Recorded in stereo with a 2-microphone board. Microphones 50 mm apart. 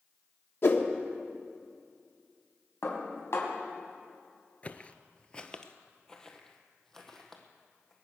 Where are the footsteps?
30° left (ahead or behind), 0.7 m; by 7.9 s 10° left (ahead or behind), 2.5 m.